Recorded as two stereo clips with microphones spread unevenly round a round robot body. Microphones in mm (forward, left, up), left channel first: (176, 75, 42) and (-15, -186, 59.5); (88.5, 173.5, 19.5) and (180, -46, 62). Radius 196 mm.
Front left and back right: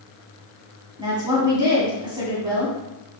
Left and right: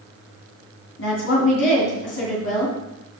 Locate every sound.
1.0 s a woman speaking: 155° left, 2.5 m